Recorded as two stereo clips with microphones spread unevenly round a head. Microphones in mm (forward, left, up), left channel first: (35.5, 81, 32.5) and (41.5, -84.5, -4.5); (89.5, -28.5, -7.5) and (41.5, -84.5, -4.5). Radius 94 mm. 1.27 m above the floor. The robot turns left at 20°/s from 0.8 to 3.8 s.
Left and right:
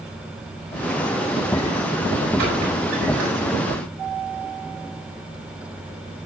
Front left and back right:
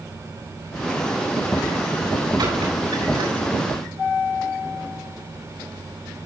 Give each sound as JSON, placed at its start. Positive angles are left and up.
{"t": 2.4, "sound": "a squeak", "azimuth_deg": -125, "distance_m": 6.5}